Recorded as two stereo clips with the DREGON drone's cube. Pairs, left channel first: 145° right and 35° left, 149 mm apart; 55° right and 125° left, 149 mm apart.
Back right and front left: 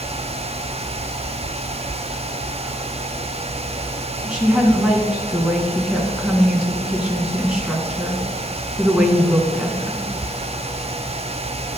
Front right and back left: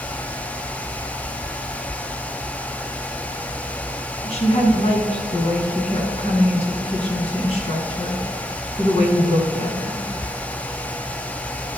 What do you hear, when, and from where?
4.2 s a woman speaking: 45° right, 2 m